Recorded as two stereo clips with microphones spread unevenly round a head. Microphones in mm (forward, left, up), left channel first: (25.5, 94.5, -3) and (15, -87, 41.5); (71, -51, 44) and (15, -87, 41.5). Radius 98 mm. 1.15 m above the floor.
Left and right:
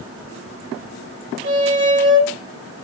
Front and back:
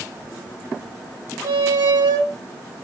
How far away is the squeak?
About 2 m.